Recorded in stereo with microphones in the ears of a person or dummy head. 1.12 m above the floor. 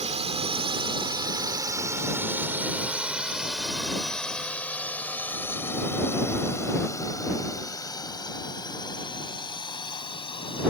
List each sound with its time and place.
0.0 s a drone: 35° right (ahead or behind); by 10.7 s 25° left (ahead or behind)